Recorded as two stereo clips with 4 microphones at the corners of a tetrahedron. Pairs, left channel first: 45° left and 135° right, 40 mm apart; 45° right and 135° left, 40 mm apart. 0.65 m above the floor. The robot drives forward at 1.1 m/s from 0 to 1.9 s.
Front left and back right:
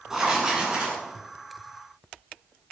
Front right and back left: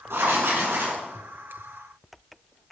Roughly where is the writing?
Behind left.